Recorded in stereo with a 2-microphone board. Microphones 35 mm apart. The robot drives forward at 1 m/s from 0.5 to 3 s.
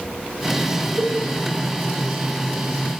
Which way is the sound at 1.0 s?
65° right (ahead or behind).